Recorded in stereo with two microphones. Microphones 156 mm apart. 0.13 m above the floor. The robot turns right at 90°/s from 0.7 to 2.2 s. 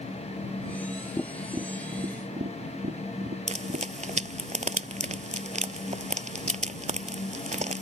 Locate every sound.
1.2 s tapping: 20° left (ahead or behind); by 3.9 s 70° right (ahead or behind)
3.5 s frying: 50° right (ahead or behind)